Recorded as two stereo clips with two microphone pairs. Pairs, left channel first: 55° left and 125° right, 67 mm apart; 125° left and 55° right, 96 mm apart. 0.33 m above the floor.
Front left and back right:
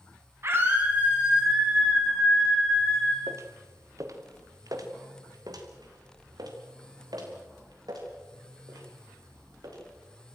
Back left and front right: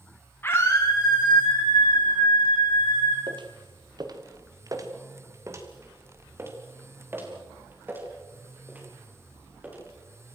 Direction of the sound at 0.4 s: 170° right.